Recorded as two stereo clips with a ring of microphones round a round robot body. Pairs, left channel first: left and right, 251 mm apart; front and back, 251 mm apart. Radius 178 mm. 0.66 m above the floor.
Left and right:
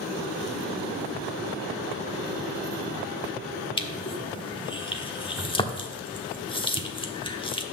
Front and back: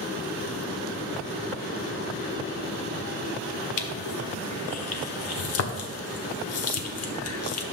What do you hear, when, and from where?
3.8 s crushing: 20° left, 1.2 m